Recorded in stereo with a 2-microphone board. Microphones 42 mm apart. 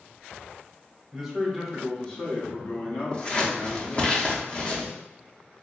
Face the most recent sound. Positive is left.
turn(degrees=25)  # may be behind; listen again after turning